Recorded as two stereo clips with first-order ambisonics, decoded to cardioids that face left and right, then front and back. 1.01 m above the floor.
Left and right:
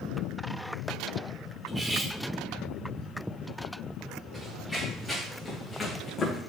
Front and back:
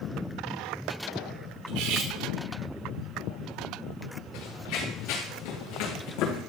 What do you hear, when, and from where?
1.7 s cutlery clinking: 170° right, 2 m
4.3 s running footsteps: 5° right, 5 m; by 6.4 s 25° left, 4 m